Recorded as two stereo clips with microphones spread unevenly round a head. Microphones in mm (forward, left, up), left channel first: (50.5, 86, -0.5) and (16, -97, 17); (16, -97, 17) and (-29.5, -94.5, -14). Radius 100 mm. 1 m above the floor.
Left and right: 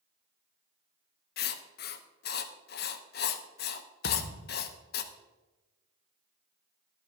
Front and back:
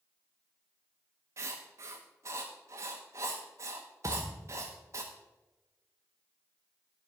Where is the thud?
105° left, 0.9 m.